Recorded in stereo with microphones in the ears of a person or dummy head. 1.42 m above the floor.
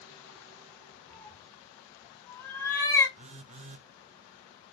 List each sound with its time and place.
1.1 s a cat meowing: 5° left (ahead or behind), 2.5 m; by 3.1 s 20° left (ahead or behind), 4 m
3.2 s a phone buzzing: 40° right (ahead or behind), 0.7 m